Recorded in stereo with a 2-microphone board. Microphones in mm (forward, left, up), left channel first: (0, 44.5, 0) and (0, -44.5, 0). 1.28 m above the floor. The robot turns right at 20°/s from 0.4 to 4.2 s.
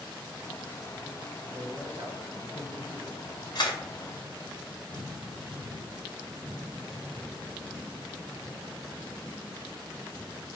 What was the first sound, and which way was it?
A man speaking, 50° right.